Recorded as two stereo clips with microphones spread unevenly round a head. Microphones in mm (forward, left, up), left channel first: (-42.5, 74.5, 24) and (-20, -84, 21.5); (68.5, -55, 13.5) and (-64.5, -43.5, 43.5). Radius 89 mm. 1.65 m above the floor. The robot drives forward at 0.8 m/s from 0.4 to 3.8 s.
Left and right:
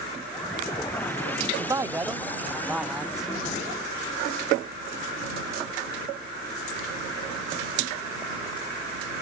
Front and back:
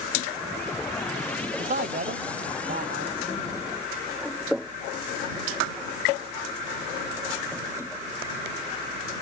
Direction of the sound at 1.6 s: 150° right.